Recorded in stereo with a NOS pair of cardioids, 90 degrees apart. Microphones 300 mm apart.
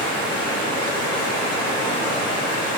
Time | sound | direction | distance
0.0 | running water | 55° left | 1.6 m